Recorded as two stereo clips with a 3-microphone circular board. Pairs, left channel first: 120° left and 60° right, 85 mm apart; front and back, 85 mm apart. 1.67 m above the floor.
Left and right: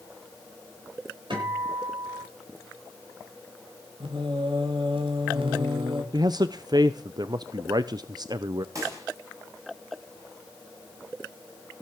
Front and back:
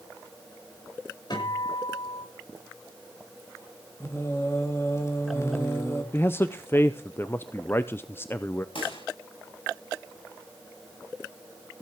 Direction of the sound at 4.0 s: 60° right.